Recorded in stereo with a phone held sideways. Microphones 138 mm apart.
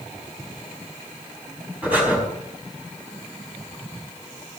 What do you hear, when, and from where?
1.8 s breathing: 15° right (ahead or behind), 4.5 m